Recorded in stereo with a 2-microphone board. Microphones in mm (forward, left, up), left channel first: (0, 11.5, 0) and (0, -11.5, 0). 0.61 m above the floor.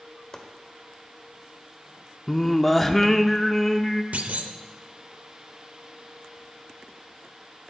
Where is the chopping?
25° left (ahead or behind), 1.1 m.